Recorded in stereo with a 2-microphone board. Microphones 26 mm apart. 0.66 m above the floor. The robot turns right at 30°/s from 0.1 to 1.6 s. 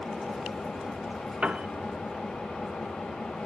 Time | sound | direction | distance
0.0 | an engine running | 40° left | 6.5 m
1.4 | a piano | 55° right (ahead or behind) | 0.8 m